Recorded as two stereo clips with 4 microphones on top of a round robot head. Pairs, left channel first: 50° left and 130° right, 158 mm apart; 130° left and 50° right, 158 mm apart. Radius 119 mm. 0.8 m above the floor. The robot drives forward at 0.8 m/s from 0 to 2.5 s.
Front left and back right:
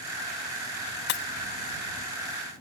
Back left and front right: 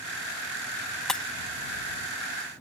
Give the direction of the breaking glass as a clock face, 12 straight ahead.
11 o'clock.